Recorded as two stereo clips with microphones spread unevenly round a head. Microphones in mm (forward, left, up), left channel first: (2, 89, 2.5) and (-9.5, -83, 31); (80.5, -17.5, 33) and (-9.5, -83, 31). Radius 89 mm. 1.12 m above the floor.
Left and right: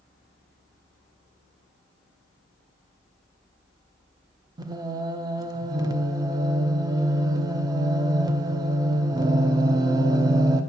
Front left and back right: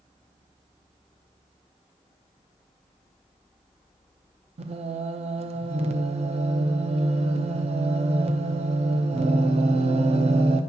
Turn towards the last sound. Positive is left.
turn(degrees=-165)